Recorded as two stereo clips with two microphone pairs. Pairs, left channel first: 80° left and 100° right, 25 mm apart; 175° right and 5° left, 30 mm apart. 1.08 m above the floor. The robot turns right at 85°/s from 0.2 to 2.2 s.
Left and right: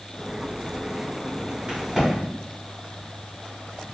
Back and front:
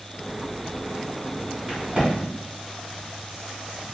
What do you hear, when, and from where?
1.7 s a crack: 50° right, 1.2 m; by 2.1 s 15° right, 1.2 m